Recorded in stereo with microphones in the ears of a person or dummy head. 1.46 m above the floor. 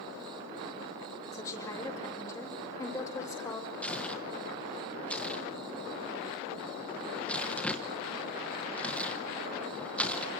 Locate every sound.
1.3 s a woman speaking: 15° left (ahead or behind), 5.5 m
3.8 s tearing paper: 5° left (ahead or behind), 1.2 m